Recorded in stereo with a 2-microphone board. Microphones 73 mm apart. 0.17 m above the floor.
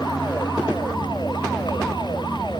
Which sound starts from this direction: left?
A vehicle, at 0.0 s.